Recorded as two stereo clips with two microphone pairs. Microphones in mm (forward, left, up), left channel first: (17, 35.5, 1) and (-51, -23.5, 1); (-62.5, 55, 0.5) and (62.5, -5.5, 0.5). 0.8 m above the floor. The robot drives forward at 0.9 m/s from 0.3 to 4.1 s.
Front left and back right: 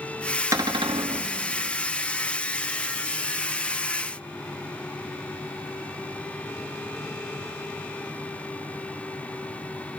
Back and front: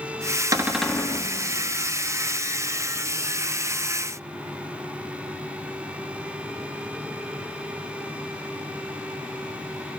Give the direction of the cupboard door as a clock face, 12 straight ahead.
3 o'clock.